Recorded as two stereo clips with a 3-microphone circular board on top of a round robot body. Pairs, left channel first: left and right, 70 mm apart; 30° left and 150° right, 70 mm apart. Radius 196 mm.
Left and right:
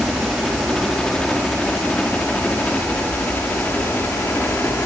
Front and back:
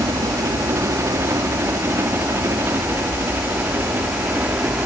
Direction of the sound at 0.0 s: Straight behind.